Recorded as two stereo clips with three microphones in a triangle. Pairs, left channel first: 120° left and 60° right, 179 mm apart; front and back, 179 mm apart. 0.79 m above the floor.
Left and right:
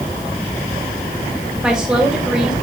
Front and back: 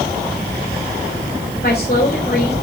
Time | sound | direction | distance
1.6 | a woman speaking | 25° left | 3 m